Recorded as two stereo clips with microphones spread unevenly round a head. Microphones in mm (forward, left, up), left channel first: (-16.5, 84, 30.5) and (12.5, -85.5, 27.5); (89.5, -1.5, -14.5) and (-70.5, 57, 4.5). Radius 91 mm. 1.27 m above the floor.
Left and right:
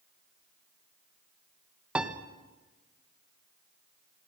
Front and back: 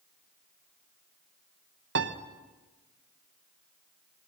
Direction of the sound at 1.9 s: 165° right.